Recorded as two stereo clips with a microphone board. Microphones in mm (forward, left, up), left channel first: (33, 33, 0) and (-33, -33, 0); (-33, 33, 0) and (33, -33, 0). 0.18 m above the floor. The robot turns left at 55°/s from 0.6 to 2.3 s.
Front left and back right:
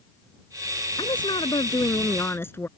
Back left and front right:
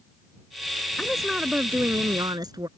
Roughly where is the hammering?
No hammering in this recording.